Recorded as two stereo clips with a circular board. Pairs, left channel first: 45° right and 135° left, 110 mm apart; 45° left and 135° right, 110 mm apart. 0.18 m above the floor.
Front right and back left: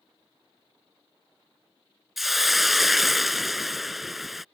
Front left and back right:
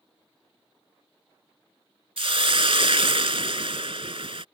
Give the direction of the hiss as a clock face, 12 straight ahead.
5 o'clock.